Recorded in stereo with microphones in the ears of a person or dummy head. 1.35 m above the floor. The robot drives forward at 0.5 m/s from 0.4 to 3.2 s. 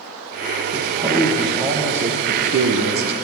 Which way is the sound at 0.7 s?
20° right (ahead or behind).